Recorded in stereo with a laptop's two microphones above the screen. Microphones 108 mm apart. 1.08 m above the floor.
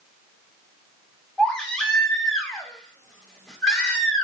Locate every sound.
1.4 s a baby crying: 10° left (ahead or behind), 1.6 m